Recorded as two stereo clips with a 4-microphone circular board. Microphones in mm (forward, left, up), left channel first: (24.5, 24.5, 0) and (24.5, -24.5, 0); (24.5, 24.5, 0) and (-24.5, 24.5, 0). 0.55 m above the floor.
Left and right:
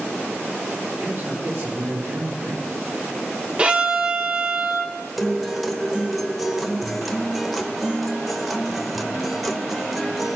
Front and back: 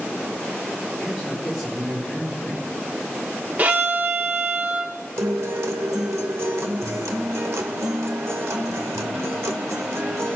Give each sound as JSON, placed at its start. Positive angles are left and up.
{"t": 1.0, "sound": "a man speaking", "azimuth_deg": -90, "distance_m": 5.5}
{"t": 3.6, "sound": "a violin", "azimuth_deg": -145, "distance_m": 0.8}
{"t": 5.2, "sound": "a guitar", "azimuth_deg": -175, "distance_m": 0.8}